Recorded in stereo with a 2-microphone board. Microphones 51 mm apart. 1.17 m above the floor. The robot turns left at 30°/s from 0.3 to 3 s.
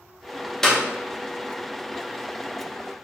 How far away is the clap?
About 0.6 m.